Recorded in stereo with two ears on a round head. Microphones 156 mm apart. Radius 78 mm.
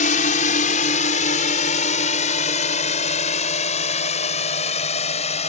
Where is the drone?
45° left (ahead or behind); by 5.5 s 40° left (ahead or behind).